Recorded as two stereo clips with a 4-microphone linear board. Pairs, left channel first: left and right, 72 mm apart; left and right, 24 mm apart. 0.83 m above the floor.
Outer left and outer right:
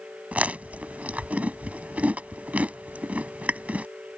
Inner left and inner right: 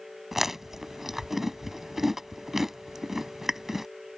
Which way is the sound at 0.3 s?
20° right (ahead or behind).